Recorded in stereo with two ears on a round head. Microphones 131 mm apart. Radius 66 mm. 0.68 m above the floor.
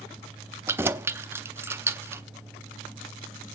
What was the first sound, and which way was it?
Keys jangling, 15° right (ahead or behind).